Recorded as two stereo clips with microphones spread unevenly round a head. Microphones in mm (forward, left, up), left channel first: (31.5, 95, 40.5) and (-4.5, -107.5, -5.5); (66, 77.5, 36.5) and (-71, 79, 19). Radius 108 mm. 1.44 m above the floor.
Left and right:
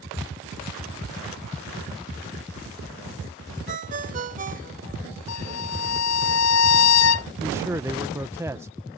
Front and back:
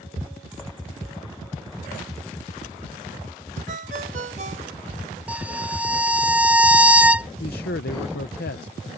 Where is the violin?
100° left.